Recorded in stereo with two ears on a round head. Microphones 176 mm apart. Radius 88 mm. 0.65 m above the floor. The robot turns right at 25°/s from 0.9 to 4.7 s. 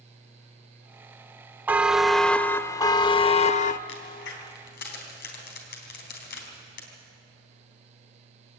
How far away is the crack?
About 4 m.